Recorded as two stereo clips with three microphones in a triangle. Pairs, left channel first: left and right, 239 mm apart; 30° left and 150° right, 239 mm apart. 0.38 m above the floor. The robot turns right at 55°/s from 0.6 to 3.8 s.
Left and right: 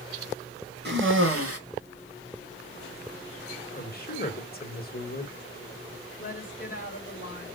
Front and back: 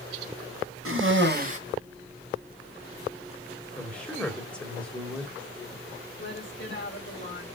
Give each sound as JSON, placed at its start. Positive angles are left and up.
{"t": 0.8, "sound": "a cough", "azimuth_deg": -135, "distance_m": 3.0}
{"t": 3.8, "sound": "a man speaking", "azimuth_deg": 110, "distance_m": 1.5}
{"t": 6.2, "sound": "a woman speaking", "azimuth_deg": 45, "distance_m": 2.5}